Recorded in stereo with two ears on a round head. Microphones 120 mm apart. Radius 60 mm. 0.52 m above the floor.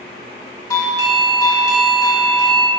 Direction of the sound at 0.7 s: 20° left (ahead or behind).